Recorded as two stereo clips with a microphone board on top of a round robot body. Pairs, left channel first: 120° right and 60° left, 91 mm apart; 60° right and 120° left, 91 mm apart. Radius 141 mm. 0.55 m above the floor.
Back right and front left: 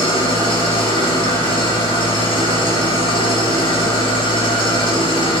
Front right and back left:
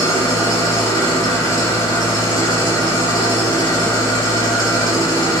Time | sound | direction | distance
0.0 | an engine running | 105° right | 4 m